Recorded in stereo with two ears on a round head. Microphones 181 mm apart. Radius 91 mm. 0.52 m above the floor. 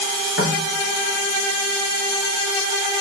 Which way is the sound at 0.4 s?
60° left (ahead or behind).